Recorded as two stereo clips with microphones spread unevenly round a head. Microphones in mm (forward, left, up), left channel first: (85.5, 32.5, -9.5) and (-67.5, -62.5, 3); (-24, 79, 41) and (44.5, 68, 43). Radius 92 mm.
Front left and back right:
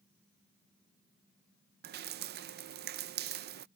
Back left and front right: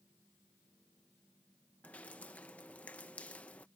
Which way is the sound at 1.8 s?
110° right.